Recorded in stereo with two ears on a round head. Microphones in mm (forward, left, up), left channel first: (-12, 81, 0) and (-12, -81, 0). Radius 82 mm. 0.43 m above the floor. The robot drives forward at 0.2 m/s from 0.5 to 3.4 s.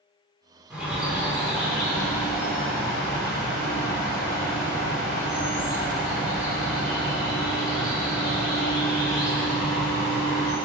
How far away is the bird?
About 0.8 m.